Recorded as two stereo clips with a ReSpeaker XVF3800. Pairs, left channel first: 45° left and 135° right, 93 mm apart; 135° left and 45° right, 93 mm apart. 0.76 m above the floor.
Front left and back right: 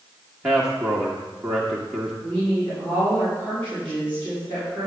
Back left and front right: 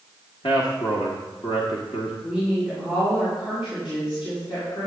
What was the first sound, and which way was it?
A man speaking, 145° left.